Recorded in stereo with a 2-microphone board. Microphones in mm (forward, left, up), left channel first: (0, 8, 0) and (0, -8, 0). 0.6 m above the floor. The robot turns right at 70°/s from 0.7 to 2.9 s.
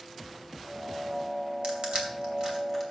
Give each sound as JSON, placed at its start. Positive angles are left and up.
{"t": 1.6, "sound": "crushing", "side_deg": -75, "distance_m": 2.5}